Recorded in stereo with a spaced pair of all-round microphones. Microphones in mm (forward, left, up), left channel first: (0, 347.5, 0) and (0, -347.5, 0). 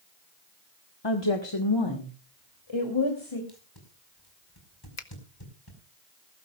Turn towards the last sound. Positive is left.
turn(degrees=65)  # may be behind; listen again after turning